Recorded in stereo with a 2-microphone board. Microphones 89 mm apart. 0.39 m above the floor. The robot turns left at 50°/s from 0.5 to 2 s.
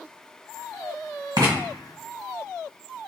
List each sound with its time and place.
1.4 s writing: 55° right (ahead or behind), 1.5 m; by 1.6 s 45° right (ahead or behind), 1.5 m